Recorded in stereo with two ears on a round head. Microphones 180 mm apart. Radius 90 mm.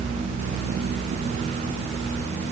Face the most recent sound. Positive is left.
No sound to turn to.